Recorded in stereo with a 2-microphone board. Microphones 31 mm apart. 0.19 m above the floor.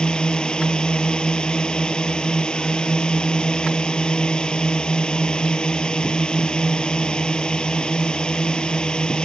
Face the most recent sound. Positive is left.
turn(degrees=30)  # may be behind; listen again after turning